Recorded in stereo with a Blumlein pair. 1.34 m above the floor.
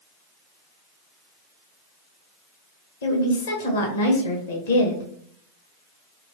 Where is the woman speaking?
60° left, 1.0 m.